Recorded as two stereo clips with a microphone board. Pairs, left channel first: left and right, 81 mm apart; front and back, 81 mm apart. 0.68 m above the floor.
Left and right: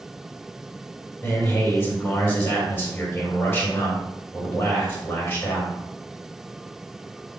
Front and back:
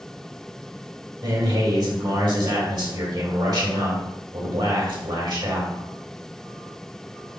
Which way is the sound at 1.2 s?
155° left.